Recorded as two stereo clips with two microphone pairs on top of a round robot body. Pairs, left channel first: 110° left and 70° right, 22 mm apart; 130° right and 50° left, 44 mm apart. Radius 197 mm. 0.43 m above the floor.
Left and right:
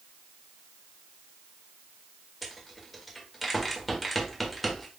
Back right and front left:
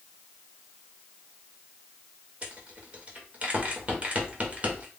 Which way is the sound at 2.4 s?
30° left.